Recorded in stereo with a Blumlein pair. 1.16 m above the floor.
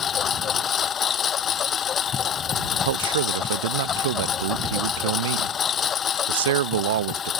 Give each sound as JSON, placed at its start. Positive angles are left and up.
{"t": 0.0, "sound": "a lawn mower", "azimuth_deg": 25}
{"t": 2.9, "sound": "a man speaking", "azimuth_deg": -60}